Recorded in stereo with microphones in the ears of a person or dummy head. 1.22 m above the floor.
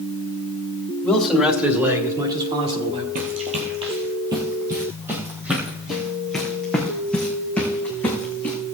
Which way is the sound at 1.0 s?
5° left (ahead or behind).